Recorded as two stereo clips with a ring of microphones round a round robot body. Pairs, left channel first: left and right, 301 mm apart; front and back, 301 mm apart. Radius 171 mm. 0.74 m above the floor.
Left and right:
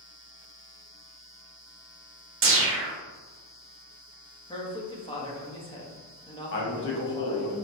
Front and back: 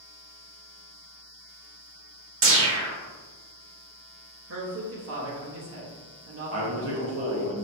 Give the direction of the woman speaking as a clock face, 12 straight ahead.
7 o'clock.